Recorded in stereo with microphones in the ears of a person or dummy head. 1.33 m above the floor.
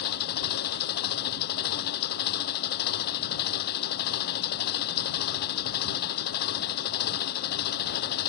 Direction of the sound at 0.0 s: 55° left (ahead or behind).